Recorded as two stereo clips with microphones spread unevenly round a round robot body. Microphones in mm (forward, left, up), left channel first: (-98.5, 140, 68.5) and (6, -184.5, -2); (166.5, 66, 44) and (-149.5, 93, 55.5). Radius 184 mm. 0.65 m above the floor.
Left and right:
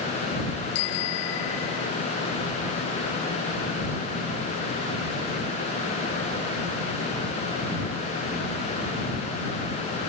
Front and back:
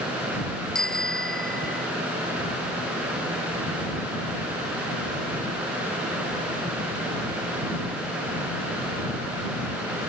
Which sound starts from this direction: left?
A bicycle bell, at 0.8 s.